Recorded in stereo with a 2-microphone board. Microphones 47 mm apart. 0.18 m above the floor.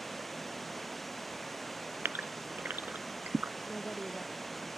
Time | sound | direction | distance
0.0 | running water | 5° left (ahead or behind) | ?
2.0 | a gasp | 50° right (ahead or behind) | ?
3.7 | a woman speaking | 20° left (ahead or behind) | ?